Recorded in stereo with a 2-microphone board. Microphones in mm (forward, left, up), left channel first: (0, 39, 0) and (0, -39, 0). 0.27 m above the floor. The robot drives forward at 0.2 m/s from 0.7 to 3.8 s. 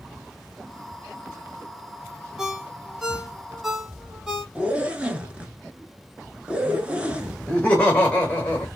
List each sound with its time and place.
2.4 s a ringtone: 5° right (ahead or behind), 0.5 m
4.5 s a zipper: 15° right (ahead or behind), 0.6 m
7.5 s laughter: 20° left (ahead or behind), 1.1 m